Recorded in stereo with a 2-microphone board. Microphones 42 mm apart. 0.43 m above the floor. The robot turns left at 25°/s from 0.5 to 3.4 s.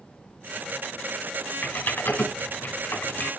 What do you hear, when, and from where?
1.6 s typing on a keyboard: 45° left (ahead or behind), 1.8 m; by 3.3 s 50° left (ahead or behind), 1.8 m